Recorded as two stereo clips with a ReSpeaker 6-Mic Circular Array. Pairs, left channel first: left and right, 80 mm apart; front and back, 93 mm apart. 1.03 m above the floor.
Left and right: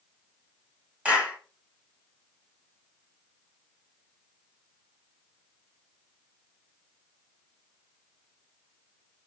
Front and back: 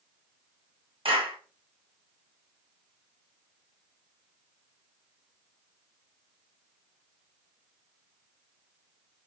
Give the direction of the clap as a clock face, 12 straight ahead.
5 o'clock.